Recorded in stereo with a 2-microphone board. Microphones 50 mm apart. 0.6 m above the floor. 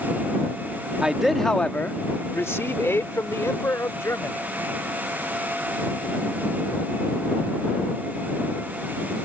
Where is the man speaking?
15° right (ahead or behind); by 4.4 s 75° left (ahead or behind).